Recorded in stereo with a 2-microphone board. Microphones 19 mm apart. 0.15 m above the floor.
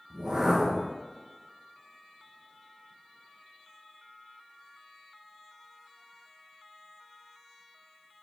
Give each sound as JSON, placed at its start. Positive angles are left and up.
{"t": 0.1, "sound": "a whoosh", "side_deg": -45, "distance_m": 1.7}